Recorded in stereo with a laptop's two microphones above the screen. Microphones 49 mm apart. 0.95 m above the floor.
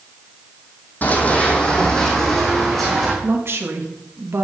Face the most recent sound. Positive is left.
turn(degrees=-60)  # may be behind; listen again after turning